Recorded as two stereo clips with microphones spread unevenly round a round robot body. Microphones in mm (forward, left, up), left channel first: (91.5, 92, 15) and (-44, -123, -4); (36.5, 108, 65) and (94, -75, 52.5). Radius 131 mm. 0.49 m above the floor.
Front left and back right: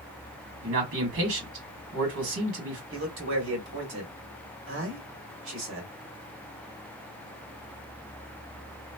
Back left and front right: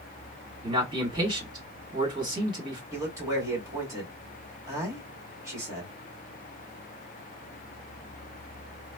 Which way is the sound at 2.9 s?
140° right.